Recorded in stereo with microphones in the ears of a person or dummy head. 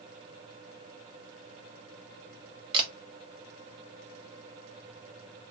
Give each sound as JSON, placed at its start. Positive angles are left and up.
{"t": 2.7, "sound": "a camera shutter", "side_deg": -25, "distance_m": 0.7}